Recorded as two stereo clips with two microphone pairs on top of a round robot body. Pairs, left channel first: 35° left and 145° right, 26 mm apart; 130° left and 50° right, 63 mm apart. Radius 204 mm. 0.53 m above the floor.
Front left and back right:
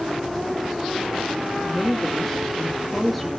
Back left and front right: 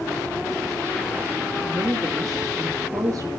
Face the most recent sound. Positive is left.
turn(degrees=-60)